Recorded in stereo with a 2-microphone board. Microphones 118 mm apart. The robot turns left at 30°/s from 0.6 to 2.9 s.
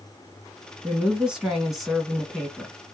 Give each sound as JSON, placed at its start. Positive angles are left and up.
{"t": 0.8, "sound": "a woman speaking", "side_deg": -10, "distance_m": 1.1}